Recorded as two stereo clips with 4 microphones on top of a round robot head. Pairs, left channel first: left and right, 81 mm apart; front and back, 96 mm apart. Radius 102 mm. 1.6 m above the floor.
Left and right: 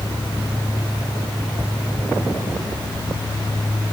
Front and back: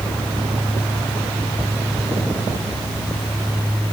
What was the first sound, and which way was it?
Only background noise.